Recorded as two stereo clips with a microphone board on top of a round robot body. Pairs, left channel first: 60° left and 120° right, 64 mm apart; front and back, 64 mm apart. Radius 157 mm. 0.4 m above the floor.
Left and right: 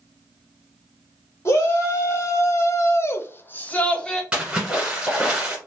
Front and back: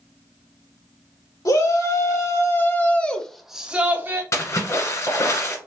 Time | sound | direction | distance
1.4 | a shout | 15° left | 1.9 m
4.3 | a splash | 45° right | 1.5 m